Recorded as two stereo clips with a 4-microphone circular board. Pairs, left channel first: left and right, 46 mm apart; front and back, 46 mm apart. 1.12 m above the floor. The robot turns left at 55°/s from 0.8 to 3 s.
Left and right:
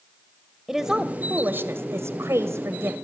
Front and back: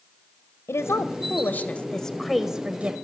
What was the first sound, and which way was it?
A woman speaking, 15° right.